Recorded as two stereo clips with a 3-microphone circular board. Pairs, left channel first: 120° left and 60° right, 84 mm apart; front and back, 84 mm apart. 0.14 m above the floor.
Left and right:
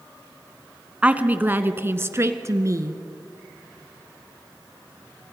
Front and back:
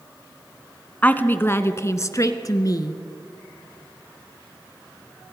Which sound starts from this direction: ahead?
A woman speaking, at 1.0 s.